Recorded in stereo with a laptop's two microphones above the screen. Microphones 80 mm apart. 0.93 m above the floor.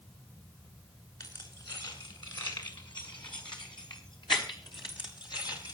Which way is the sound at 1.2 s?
65° left (ahead or behind).